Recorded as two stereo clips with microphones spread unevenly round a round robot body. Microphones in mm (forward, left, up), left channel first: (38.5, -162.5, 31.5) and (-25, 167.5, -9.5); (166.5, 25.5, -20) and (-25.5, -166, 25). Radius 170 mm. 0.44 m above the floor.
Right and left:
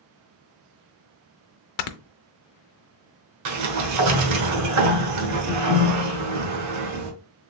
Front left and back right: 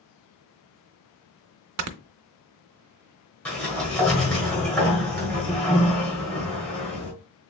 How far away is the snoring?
About 0.5 m.